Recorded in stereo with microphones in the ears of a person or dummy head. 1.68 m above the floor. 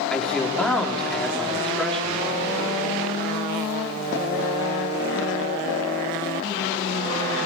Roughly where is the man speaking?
Centre.